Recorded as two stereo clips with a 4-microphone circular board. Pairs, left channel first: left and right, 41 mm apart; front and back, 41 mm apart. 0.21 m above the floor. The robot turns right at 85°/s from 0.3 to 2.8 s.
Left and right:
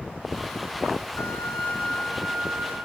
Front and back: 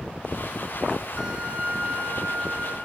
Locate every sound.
1.2 s a violin: 95° left, 5 m; by 2.8 s 130° right, 5 m